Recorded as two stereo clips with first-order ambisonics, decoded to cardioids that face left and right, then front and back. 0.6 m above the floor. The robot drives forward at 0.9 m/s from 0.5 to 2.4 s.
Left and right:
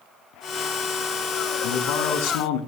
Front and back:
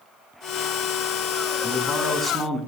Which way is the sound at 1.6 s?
85° left.